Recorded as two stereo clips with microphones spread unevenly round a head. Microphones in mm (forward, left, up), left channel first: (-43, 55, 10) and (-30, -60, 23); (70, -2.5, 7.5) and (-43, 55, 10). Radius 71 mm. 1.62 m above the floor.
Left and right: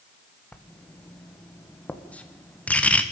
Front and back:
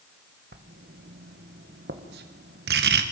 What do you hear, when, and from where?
0.5 s writing: 175° left, 1.6 m